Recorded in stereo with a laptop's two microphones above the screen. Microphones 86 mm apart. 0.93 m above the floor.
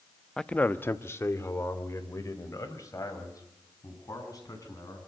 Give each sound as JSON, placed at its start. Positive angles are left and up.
{"t": 0.4, "sound": "a man speaking", "side_deg": 5, "distance_m": 0.7}